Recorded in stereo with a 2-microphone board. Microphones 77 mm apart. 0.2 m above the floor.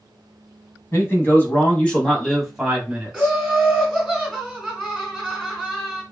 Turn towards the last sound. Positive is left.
turn(degrees=5)  # may be behind; listen again after turning